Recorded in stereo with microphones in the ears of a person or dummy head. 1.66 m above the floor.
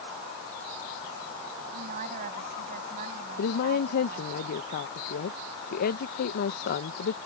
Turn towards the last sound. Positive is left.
turn(degrees=45)  # may be behind; listen again after turning